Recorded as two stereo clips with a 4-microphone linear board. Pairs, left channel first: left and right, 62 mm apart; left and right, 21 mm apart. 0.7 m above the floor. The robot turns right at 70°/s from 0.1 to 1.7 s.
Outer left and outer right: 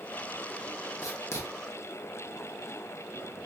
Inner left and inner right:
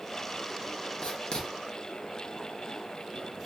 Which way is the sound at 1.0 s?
55° left (ahead or behind).